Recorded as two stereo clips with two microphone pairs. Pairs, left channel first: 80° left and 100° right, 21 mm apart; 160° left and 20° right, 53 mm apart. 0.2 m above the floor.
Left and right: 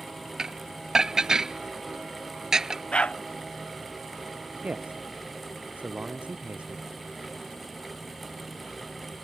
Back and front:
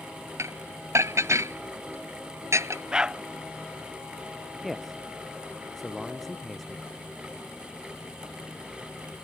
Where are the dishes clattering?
40° right.